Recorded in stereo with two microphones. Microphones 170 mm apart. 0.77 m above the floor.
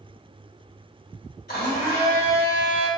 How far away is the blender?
About 1.9 m.